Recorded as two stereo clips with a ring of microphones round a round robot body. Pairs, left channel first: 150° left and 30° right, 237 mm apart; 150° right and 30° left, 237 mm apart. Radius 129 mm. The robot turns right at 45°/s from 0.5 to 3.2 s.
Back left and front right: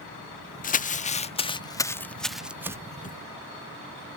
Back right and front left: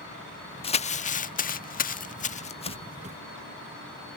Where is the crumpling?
165° left; by 2.8 s 100° right.